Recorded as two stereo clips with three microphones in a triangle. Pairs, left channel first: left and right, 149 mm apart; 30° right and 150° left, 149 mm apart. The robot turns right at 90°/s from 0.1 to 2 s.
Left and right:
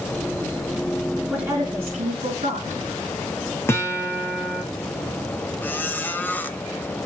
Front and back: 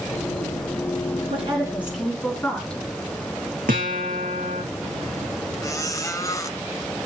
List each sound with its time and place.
1.3 s a woman speaking: 175° right, 4 m; by 2.8 s 115° right, 4 m
3.7 s a guitar: 165° left, 3 m
5.6 s a squeak: 20° left, 0.9 m